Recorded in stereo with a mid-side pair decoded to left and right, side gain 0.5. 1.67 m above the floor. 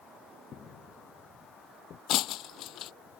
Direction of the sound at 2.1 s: 70° left.